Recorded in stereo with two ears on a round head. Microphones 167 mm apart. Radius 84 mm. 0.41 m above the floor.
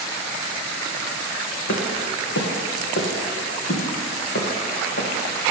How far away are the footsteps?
About 3 m.